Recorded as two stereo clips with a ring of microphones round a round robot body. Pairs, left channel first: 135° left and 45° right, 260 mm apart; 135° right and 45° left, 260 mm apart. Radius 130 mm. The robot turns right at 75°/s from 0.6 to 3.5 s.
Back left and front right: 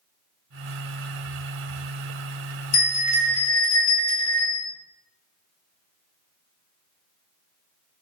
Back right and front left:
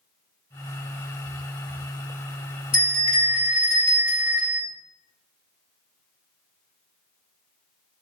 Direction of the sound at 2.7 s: 150° left.